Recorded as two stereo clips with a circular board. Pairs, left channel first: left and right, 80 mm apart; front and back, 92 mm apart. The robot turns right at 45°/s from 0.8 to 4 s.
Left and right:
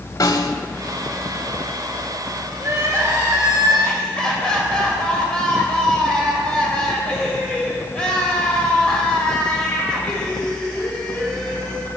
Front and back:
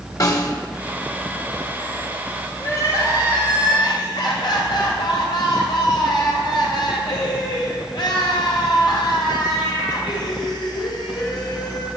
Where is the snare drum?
50° left, 0.8 m.